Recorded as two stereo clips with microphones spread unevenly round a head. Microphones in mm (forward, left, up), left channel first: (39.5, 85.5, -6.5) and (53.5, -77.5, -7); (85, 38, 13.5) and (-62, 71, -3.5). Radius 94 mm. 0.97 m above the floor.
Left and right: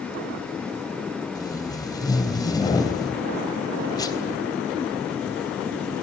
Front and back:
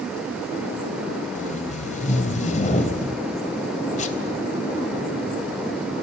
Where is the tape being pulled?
25° left, 3.5 m.